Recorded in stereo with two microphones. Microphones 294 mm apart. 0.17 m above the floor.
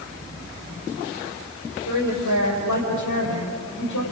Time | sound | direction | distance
1.9 | a woman speaking | 75° left (ahead or behind) | 5.5 m